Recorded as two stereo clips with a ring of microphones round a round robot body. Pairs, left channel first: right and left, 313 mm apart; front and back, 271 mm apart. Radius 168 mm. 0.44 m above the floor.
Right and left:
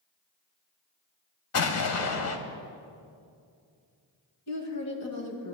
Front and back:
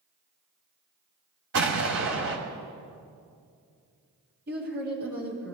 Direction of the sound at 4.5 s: 125° right.